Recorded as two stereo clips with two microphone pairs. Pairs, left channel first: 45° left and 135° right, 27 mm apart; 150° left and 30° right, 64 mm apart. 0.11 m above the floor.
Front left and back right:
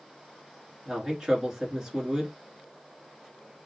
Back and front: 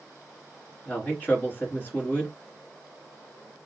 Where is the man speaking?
170° left, 1.8 m.